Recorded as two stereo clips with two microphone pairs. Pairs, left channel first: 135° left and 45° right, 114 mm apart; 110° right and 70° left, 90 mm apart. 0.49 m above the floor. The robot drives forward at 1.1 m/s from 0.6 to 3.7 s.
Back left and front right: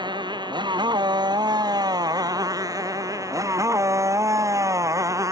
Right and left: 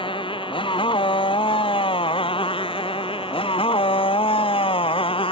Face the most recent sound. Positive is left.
turn(degrees=-105)